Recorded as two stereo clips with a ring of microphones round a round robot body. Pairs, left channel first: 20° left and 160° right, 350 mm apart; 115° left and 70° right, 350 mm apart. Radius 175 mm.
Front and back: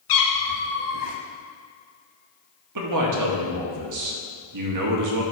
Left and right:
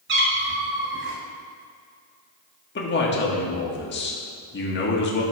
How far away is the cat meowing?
About 1.3 m.